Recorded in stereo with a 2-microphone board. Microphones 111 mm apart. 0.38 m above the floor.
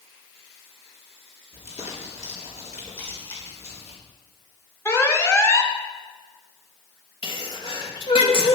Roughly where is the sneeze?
Left.